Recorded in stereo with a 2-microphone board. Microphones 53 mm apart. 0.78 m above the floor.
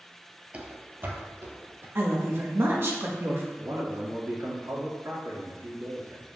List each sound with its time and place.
0.5 s running footsteps: 25° right (ahead or behind), 0.9 m; by 1.9 s 50° right (ahead or behind), 1.9 m
1.9 s a woman speaking: 45° right (ahead or behind), 1.4 m
3.6 s a man speaking: 65° right (ahead or behind), 1.9 m